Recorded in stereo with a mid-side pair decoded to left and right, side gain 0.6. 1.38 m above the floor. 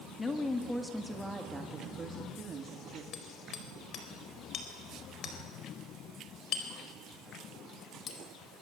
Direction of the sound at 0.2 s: 25° left.